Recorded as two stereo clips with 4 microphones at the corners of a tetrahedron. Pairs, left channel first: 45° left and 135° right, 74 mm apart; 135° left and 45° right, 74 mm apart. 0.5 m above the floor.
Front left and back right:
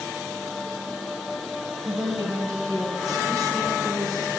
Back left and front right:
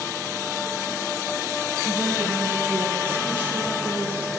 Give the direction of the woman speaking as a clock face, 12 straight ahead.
3 o'clock.